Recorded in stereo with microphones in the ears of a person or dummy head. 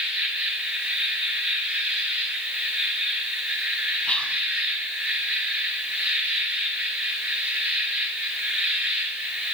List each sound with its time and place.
0.0 s an insect: 5° right (ahead or behind), 1.7 m
4.1 s whispering: 5° left (ahead or behind), 0.9 m